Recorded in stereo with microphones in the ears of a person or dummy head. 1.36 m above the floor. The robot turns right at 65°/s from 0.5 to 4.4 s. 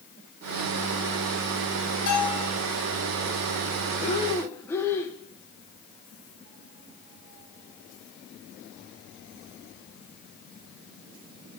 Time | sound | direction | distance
2.1 | a bell | 50° left (ahead or behind) | 5 m
4.0 | breathing | 40° left (ahead or behind) | 1.2 m